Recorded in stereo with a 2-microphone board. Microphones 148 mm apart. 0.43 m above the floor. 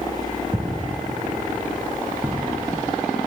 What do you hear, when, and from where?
0.5 s footsteps: 25° right (ahead or behind), 2.5 m; by 3.0 s 20° right (ahead or behind), 6 m